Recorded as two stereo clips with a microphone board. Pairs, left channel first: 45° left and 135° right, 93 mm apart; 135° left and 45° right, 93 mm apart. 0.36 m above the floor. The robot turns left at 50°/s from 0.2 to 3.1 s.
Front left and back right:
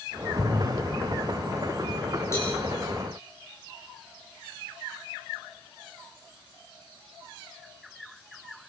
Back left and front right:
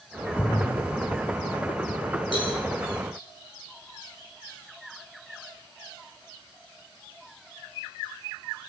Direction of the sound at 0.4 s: 160° right.